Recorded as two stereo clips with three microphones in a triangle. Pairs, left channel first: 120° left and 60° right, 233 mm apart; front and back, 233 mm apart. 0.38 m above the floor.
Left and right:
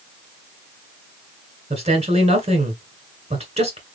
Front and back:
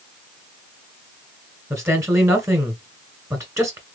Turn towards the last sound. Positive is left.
turn(degrees=-110)